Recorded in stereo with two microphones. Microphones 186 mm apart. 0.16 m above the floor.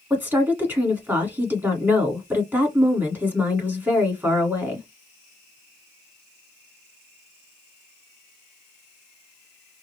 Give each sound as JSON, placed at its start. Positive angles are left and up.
{"t": 0.1, "sound": "a woman speaking", "side_deg": -10, "distance_m": 1.5}